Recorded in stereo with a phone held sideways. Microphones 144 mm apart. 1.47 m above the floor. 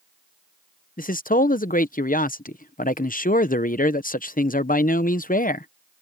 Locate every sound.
1.0 s a man speaking: 75° left (ahead or behind)